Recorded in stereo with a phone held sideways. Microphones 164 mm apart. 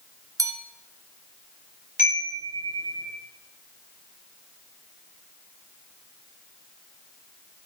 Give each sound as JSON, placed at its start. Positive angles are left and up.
{"t": 0.4, "sound": "a bell", "side_deg": -20, "distance_m": 1.1}
{"t": 2.0, "sound": "a chime", "side_deg": 55, "distance_m": 5.5}